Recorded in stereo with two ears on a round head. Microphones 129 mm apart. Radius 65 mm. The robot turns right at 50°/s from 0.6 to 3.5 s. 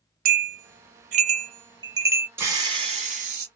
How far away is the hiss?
About 1.5 m.